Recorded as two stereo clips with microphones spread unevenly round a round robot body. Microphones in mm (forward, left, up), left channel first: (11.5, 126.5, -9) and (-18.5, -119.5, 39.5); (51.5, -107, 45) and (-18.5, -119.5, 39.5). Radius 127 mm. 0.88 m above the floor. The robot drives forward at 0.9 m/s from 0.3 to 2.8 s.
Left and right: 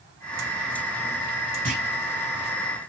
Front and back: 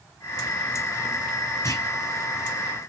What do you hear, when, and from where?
1.6 s a clunk: 30° right, 6 m; by 1.9 s 35° right, 5.5 m